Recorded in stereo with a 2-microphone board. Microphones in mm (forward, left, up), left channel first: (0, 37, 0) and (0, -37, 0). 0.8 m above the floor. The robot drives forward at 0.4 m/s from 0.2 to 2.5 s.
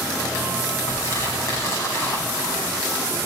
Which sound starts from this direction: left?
Crumpling, at 0.9 s.